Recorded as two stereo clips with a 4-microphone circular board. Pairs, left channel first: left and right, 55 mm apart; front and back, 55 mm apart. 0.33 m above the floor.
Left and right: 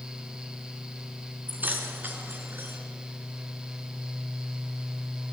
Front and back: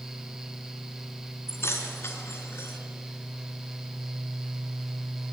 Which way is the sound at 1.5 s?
35° right.